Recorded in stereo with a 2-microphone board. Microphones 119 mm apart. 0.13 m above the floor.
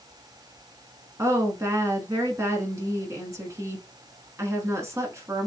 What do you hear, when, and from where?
1.2 s a woman speaking: 25° right (ahead or behind), 1.2 m